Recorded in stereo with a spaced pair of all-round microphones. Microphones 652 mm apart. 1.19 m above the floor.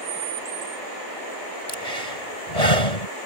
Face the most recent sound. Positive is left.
turn(degrees=70)  # may be behind; listen again after turning